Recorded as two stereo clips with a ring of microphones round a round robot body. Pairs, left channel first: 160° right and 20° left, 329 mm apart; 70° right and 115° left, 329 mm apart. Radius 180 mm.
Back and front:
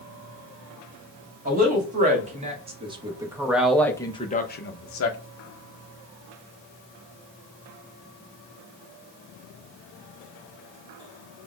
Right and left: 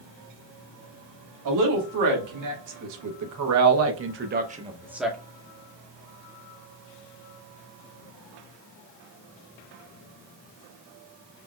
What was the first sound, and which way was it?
A woman speaking, 85° left.